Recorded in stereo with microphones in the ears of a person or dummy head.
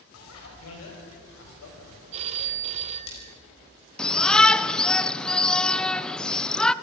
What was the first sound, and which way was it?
A bicycle bell, 85° left.